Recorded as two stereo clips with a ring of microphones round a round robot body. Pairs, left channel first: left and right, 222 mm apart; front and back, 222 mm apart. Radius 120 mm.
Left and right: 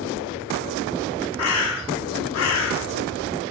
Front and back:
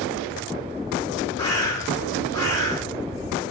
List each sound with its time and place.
1.4 s a bird: 75° left, 0.6 m